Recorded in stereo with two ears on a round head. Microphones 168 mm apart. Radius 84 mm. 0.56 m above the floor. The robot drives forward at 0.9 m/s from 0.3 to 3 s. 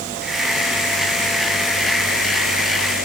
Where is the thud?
I don't hear a thud.